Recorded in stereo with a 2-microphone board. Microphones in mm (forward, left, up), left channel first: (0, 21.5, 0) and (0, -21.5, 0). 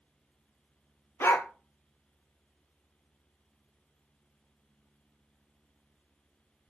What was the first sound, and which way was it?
A dog barking, 70° left (ahead or behind).